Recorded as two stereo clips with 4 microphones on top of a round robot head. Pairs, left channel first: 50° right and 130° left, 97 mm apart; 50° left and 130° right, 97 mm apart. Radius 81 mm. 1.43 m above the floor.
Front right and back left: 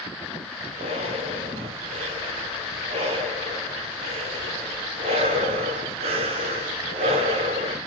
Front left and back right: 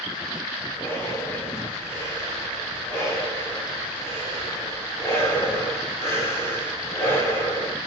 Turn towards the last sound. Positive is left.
turn(degrees=110)